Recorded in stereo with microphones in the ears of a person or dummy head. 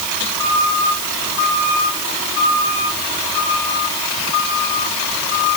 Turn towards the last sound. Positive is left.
No sound to turn to.